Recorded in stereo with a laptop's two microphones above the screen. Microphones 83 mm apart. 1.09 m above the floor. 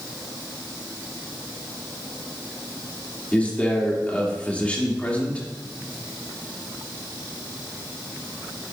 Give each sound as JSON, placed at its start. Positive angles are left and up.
{"t": 3.3, "sound": "a man speaking", "side_deg": 20, "distance_m": 3.0}